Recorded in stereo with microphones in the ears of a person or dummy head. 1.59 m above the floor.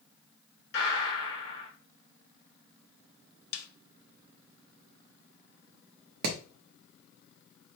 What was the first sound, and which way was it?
A gunshot, 50° left (ahead or behind).